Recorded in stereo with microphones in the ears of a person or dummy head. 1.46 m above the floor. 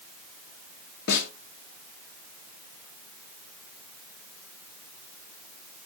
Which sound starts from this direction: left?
A snare drum, at 1.1 s.